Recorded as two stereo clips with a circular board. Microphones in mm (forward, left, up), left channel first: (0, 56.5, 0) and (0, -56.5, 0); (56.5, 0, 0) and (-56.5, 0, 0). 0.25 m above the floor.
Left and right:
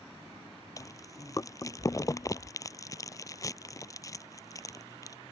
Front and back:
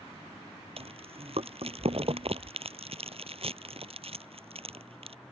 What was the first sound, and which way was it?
Chewing, 150° left.